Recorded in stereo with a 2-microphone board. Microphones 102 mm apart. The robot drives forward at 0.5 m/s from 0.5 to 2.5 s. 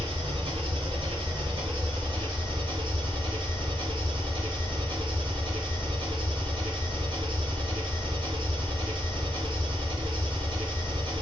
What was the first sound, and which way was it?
An engine running, 65° right (ahead or behind).